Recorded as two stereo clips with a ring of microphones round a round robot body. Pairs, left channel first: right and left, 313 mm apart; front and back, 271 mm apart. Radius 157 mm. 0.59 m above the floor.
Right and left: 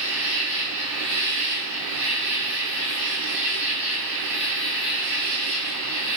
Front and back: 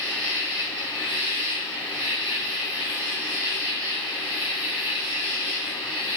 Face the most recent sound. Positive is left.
turn(degrees=135)